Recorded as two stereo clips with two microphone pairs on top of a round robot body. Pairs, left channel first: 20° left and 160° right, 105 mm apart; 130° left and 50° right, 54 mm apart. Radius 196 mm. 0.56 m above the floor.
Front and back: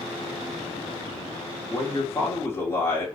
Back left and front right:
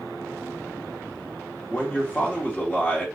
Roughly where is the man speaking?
Left.